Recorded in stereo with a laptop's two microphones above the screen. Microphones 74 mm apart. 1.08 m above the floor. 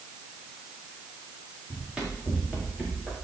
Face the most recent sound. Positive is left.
turn(degrees=-15)  # may be behind; listen again after turning